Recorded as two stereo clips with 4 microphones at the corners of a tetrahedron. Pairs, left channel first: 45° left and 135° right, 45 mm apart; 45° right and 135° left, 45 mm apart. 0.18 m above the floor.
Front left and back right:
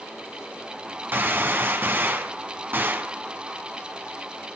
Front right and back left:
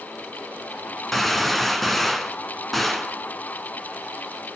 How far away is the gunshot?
About 1.4 m.